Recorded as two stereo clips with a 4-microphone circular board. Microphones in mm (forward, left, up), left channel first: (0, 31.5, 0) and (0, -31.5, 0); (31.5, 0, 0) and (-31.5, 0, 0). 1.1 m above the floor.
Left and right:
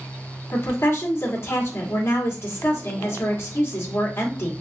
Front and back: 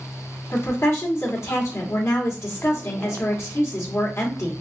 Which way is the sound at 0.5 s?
45° left.